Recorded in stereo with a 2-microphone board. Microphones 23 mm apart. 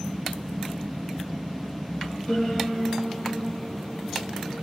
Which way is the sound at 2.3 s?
75° left (ahead or behind).